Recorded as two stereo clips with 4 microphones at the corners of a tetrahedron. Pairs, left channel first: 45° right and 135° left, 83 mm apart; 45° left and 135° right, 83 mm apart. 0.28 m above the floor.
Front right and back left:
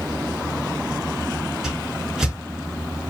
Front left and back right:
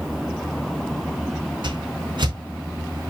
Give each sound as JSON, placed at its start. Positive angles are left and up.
{"t": 1.6, "sound": "a whoosh", "azimuth_deg": -140, "distance_m": 3.5}